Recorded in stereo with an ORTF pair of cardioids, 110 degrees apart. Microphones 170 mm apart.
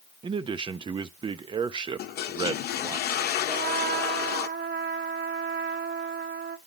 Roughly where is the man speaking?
Ahead right.